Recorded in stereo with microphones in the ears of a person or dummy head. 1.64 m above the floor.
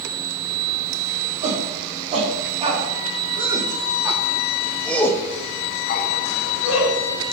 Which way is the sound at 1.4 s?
40° right (ahead or behind).